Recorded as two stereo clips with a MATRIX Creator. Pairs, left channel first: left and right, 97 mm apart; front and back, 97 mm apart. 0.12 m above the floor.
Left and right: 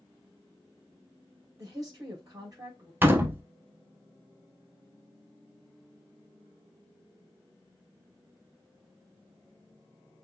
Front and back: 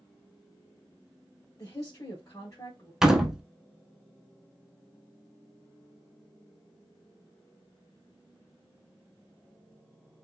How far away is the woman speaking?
About 3.5 m.